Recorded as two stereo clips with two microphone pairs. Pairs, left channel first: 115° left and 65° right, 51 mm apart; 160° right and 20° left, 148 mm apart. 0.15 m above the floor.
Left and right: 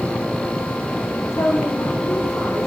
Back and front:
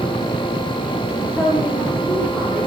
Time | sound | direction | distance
1.3 | a woman speaking | 120° left | 8.5 m